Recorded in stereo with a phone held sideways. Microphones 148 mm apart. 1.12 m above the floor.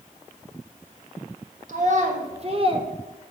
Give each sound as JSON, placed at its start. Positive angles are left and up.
{"t": 1.7, "sound": "a child speaking", "side_deg": -60, "distance_m": 1.4}